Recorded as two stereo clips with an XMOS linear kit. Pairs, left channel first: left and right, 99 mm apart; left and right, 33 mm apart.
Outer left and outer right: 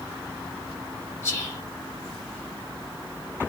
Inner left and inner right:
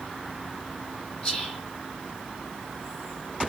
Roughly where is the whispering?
Left.